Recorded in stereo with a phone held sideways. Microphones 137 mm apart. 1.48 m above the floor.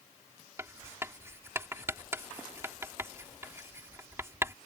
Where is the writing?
20° right (ahead or behind).